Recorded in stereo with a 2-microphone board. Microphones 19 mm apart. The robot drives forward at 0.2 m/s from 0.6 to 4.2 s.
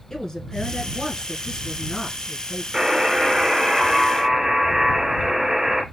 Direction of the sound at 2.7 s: 25° right (ahead or behind).